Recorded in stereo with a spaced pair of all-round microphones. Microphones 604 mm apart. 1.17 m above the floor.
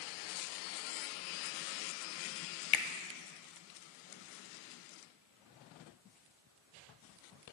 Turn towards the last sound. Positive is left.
turn(degrees=55)  # may be behind; listen again after turning